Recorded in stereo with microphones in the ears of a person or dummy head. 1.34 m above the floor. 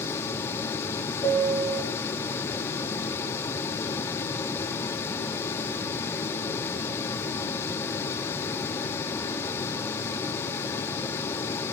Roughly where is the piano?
Centre.